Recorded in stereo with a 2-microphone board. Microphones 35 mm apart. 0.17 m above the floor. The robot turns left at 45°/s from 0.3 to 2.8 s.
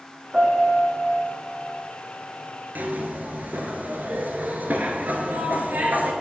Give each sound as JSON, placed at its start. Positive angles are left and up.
{"t": 0.3, "sound": "a piano", "azimuth_deg": -140, "distance_m": 1.9}
{"t": 2.8, "sound": "a zipper", "side_deg": -65, "distance_m": 1.0}